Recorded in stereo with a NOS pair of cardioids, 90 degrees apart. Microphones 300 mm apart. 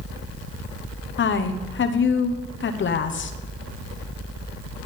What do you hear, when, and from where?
1.2 s a woman speaking: 40° left, 1.0 m